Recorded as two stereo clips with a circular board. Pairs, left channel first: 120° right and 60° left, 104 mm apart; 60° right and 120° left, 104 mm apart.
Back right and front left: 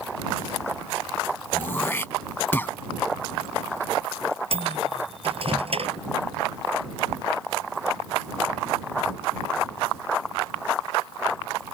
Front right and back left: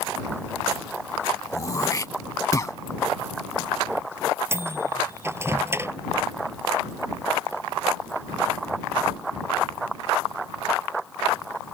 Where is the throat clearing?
70° right.